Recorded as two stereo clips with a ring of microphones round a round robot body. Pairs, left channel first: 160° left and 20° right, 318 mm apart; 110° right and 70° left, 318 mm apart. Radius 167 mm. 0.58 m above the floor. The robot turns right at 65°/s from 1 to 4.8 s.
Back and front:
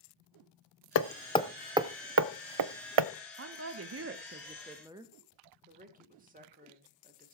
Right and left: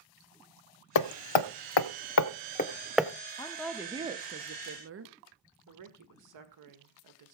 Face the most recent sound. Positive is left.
turn(degrees=40)